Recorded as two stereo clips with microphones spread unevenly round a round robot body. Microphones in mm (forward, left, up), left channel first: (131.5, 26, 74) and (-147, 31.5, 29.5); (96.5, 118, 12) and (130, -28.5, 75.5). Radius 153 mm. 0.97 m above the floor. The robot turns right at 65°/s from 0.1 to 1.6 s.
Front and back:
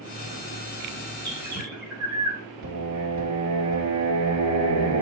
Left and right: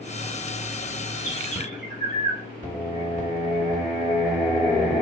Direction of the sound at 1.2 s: 160° right.